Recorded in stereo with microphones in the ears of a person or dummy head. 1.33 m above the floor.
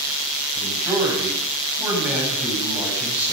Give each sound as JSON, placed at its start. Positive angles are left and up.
{"t": 0.6, "sound": "a man speaking", "side_deg": -10, "distance_m": 9.5}